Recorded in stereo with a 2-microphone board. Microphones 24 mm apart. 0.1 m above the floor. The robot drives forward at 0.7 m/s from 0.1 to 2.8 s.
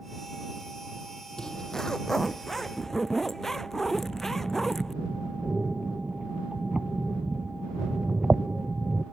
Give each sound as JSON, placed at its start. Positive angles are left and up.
{"t": 1.4, "sound": "a zipper", "side_deg": 35}
{"t": 3.9, "sound": "breathing", "side_deg": -45}